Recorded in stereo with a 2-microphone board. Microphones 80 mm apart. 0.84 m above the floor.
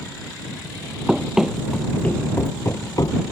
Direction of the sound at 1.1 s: 15° right (ahead or behind).